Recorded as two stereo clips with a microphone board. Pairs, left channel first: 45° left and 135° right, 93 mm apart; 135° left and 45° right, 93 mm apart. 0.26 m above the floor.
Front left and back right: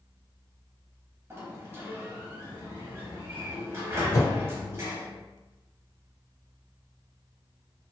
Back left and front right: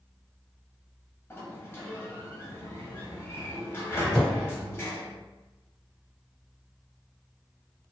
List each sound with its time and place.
1.3 s a sliding door: 175° right, 0.7 m
4.1 s a whoosh: 60° left, 1.2 m